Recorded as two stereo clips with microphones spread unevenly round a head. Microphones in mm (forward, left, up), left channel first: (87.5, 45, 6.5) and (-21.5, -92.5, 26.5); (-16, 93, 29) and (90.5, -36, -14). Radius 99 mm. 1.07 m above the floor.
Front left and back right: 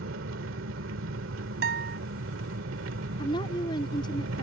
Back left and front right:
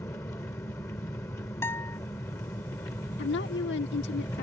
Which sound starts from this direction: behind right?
An engine running, at 0.0 s.